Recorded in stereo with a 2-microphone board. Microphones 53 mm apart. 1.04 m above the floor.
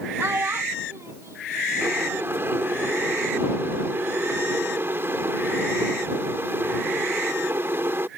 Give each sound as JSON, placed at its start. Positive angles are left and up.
{"t": 0.2, "sound": "a child speaking", "side_deg": -50}
{"t": 1.8, "sound": "boiling", "side_deg": -50}